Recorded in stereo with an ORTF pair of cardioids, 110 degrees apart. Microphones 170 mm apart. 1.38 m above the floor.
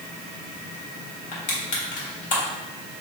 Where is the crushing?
55° left, 1.8 m.